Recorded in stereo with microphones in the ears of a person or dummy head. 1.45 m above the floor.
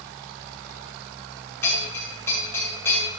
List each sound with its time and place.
1.6 s a bell: 10° left (ahead or behind), 6 m